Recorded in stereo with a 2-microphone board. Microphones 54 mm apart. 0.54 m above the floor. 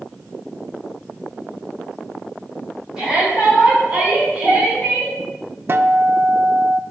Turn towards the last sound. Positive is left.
turn(degrees=-45)  # may be behind; listen again after turning